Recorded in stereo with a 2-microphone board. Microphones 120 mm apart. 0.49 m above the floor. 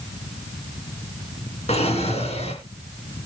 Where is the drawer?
60° left (ahead or behind), 2.5 m.